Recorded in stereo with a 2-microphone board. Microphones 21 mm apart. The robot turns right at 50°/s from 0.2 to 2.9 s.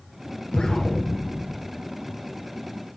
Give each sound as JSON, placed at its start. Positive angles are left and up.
{"t": 0.5, "sound": "an explosion", "azimuth_deg": 130, "distance_m": 2.0}